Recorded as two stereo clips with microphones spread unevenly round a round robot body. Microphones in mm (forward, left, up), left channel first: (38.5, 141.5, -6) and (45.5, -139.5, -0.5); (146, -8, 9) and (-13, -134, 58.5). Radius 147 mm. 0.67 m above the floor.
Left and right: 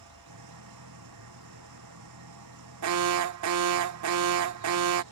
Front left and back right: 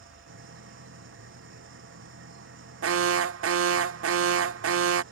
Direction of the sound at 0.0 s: 120° right.